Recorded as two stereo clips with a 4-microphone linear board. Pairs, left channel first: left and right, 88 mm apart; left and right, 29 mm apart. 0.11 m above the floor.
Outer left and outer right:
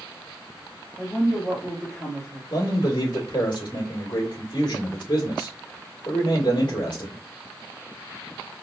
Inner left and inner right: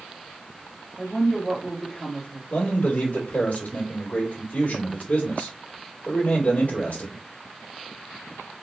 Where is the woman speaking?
30° left (ahead or behind), 2.5 m.